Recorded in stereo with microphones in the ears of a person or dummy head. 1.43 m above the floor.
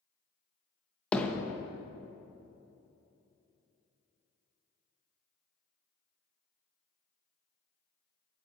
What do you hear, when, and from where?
1.1 s hammering: 5° left (ahead or behind), 1.1 m